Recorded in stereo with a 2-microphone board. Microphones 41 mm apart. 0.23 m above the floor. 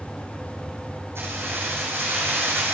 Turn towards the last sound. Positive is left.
turn(degrees=-70)  # may be behind; listen again after turning